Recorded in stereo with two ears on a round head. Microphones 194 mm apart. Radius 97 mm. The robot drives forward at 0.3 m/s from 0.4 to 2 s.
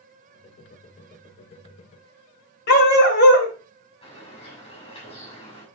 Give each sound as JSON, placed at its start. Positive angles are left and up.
{"t": 2.7, "sound": "a dog barking", "side_deg": 50, "distance_m": 2.0}
{"t": 4.0, "sound": "a bird", "side_deg": 25, "distance_m": 6.0}